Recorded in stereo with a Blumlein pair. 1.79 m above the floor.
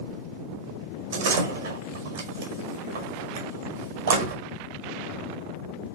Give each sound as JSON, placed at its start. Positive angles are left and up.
{"t": 1.1, "sound": "a door slam", "azimuth_deg": -60, "distance_m": 5.0}